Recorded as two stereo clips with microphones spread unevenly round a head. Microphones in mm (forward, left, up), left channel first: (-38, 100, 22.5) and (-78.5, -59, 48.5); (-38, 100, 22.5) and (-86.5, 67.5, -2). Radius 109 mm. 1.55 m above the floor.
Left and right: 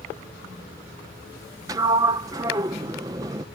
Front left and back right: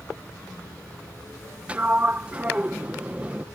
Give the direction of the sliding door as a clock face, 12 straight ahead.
2 o'clock.